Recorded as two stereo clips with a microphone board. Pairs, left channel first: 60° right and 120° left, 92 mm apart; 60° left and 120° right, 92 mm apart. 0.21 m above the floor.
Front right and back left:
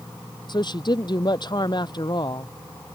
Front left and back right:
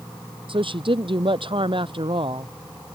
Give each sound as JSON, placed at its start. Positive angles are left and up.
{"t": 0.5, "sound": "a woman speaking", "azimuth_deg": -95}